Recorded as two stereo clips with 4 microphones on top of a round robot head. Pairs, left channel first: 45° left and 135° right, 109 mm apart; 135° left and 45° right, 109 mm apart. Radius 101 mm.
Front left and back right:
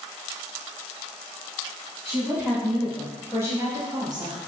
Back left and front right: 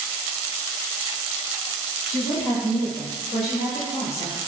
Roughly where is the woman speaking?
Behind left.